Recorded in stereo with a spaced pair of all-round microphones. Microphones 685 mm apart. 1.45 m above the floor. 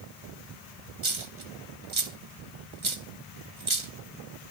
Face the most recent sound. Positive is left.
turn(degrees=-45)  # may be behind; listen again after turning